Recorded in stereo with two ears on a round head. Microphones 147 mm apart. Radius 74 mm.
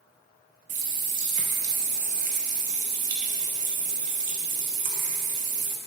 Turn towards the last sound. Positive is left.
turn(degrees=-50)  # may be behind; listen again after turning